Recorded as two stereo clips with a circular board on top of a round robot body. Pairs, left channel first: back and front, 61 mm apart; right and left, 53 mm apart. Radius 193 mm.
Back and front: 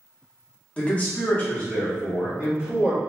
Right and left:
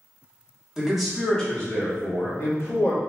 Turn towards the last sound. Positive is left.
turn(degrees=-110)